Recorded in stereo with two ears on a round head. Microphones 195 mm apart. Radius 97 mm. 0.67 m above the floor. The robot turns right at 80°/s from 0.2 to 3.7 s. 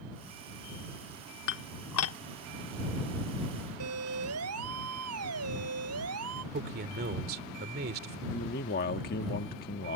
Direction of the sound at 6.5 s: 45° right (ahead or behind).